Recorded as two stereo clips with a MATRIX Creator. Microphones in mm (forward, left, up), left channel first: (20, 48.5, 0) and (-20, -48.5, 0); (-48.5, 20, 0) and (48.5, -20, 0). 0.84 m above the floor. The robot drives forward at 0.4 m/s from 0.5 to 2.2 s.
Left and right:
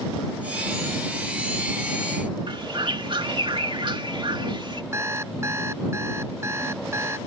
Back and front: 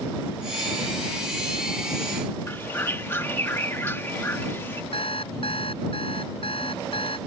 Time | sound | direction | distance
2.5 | a bird | 140° right | ?
4.9 | an alarm clock | 175° right | ?